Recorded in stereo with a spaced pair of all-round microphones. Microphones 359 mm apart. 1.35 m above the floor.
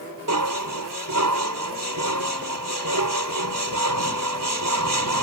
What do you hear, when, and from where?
0.3 s dishes clattering: 60° right (ahead or behind)